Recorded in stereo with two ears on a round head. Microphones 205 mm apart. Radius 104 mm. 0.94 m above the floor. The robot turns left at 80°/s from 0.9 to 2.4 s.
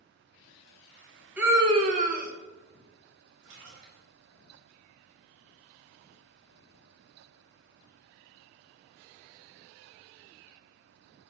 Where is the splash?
80° right, 3 m.